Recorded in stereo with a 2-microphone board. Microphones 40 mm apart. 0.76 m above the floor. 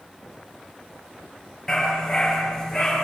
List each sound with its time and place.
1.7 s a dog barking: 15° left (ahead or behind), 7 m